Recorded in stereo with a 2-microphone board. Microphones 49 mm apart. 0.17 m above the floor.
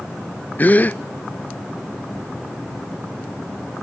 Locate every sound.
0.6 s a gasp: 35° left (ahead or behind), 0.5 m